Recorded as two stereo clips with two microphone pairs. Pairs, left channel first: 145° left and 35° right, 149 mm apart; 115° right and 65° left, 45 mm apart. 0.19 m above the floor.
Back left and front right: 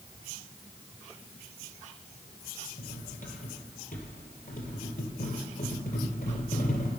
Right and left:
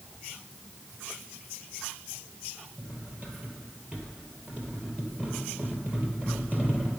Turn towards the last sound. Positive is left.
turn(degrees=130)